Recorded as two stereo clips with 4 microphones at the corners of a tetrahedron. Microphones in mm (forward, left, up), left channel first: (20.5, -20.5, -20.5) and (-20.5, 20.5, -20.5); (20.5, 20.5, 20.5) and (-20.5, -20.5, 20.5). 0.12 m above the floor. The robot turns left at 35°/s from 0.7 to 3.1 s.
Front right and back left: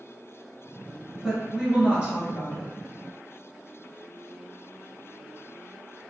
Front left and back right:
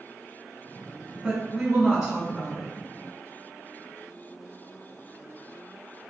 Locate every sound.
1.2 s a woman speaking: 165° right, 1.1 m; by 2.7 s 140° left, 1.1 m